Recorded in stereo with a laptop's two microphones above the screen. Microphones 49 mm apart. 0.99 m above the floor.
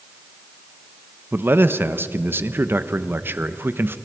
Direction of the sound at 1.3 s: 45° right (ahead or behind).